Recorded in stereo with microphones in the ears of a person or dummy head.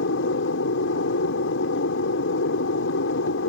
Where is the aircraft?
70° left (ahead or behind).